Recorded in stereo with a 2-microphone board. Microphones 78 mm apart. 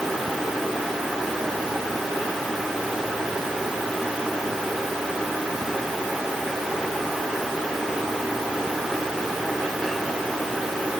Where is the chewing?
No chewing in this recording.